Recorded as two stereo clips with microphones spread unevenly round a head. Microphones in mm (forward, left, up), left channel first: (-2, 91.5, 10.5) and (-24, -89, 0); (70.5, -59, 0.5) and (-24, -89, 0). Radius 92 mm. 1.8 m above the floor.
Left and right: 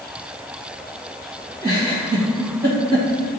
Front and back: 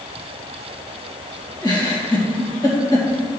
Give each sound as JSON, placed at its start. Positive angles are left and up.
{"t": 1.6, "sound": "a giggle", "azimuth_deg": -30, "distance_m": 2.0}